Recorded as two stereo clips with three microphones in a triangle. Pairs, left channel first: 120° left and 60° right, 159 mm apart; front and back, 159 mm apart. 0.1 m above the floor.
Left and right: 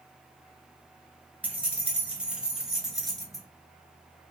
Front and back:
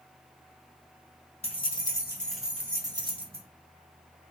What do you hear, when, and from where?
1.4 s keys jangling: 15° left, 1.2 m; by 3.5 s 150° right, 1.4 m